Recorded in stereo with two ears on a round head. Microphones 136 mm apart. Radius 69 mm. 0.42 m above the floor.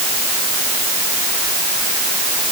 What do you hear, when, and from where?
Only background noise.